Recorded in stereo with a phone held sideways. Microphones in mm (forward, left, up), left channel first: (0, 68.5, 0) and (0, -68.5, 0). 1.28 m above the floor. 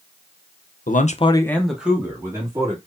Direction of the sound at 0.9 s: 80° left.